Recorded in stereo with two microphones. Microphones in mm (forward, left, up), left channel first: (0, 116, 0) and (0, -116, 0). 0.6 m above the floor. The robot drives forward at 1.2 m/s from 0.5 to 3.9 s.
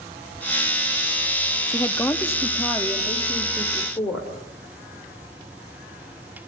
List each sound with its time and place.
1.7 s a woman speaking: 10° left (ahead or behind), 1.1 m; by 4.3 s 5° left (ahead or behind), 2.5 m